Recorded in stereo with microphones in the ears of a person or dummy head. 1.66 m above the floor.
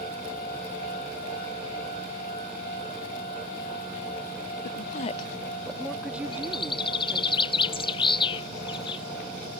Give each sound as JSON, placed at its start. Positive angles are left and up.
{"t": 4.6, "sound": "a woman speaking", "side_deg": 60}
{"t": 6.3, "sound": "a bird", "side_deg": 30}